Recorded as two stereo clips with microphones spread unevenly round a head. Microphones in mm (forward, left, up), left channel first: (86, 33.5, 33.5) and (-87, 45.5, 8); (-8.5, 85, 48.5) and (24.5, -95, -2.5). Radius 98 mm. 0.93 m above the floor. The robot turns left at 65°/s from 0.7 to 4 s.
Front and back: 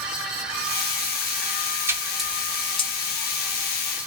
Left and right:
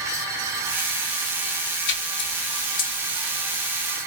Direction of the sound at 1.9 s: 115° left.